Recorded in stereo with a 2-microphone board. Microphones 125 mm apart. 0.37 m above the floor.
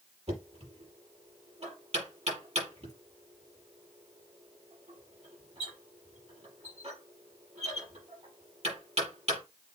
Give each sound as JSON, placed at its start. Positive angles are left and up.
{"t": 0.3, "sound": "knocking", "side_deg": -55, "distance_m": 6.5}